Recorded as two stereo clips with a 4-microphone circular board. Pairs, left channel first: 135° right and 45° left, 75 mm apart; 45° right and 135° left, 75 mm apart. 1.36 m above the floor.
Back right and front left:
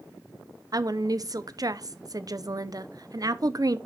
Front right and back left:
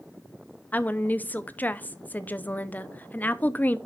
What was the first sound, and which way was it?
A woman speaking, 20° left.